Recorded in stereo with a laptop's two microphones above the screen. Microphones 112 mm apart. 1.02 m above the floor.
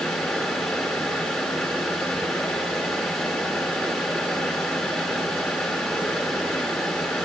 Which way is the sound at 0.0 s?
Centre (ahead or behind).